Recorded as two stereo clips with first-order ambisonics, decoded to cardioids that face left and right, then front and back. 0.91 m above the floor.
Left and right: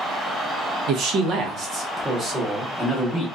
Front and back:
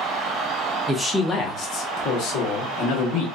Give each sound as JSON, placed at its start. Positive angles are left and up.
{"t": 0.9, "sound": "a man speaking", "azimuth_deg": -100, "distance_m": 0.6}